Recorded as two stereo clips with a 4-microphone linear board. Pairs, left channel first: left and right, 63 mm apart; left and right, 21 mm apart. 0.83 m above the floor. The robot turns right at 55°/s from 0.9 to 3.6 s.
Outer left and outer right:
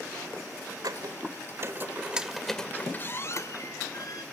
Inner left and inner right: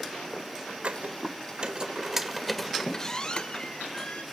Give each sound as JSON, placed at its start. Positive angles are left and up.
{"t": 0.8, "sound": "a squeak", "side_deg": -85, "distance_m": 1.7}